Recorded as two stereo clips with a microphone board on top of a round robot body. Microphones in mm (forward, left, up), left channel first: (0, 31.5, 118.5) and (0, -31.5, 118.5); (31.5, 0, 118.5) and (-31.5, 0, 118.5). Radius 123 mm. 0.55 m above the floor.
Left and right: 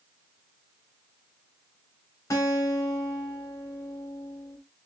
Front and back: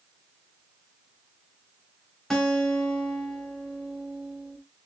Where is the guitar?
85° left, 1.9 m.